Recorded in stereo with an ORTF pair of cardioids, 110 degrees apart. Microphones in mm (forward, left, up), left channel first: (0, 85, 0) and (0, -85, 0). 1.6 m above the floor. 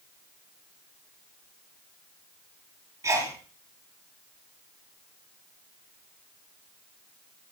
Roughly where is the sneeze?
Ahead.